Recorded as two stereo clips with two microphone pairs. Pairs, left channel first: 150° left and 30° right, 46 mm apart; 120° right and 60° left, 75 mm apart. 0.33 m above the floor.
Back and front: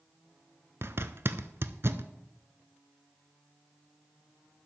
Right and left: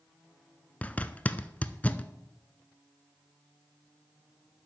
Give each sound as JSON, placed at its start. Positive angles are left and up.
{"t": 0.8, "sound": "a zipper", "azimuth_deg": -55, "distance_m": 0.6}